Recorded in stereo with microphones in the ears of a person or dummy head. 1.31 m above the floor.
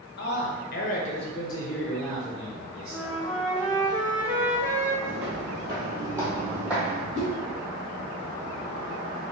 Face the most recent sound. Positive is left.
turn(degrees=-45)  # may be behind; listen again after turning